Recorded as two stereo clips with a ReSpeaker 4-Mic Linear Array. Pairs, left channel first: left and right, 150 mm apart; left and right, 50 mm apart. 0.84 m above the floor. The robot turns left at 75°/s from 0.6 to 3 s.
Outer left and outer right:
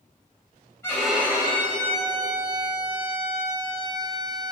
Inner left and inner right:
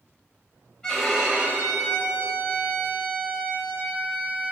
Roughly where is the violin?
Ahead.